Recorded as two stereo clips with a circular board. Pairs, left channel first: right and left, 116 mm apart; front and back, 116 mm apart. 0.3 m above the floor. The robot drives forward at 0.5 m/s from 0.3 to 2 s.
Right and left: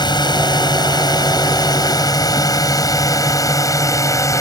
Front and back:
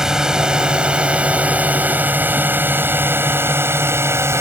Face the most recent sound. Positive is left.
turn(degrees=-130)